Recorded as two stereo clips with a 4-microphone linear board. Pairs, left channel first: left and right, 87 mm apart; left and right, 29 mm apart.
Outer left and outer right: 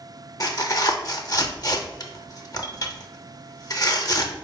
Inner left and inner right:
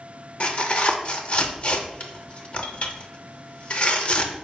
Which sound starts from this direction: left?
Tearing paper, at 0.4 s.